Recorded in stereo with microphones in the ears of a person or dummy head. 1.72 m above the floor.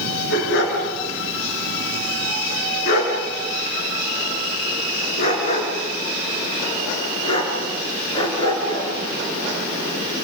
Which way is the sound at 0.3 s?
75° left (ahead or behind).